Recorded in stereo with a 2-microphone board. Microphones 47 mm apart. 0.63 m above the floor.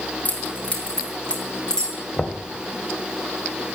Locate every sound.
0.2 s keys jangling: 30° left (ahead or behind), 4 m; by 2.0 s 15° left (ahead or behind), 4.5 m
2.2 s knocking: 25° left (ahead or behind), 2.5 m